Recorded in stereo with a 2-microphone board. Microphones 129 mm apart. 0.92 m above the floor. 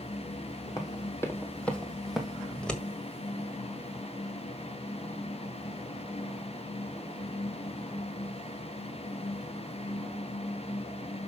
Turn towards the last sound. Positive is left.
turn(degrees=5)  # may be behind; listen again after turning